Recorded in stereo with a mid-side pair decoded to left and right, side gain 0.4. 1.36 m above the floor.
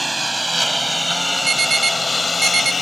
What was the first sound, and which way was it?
A lawn mower, 20° right.